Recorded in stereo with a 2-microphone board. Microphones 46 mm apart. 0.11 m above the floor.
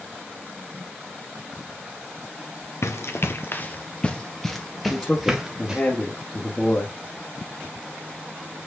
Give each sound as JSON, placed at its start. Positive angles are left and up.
{"t": 2.8, "sound": "running footsteps", "side_deg": 75, "distance_m": 1.3}
{"t": 4.9, "sound": "a man speaking", "side_deg": 25, "distance_m": 1.6}